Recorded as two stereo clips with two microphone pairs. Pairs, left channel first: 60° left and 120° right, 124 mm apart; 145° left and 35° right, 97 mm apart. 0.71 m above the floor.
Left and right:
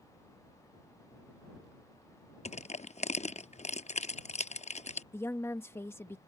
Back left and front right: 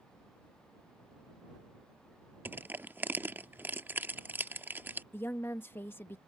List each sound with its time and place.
2.5 s crushing: 35° left
5.1 s a woman speaking: 100° left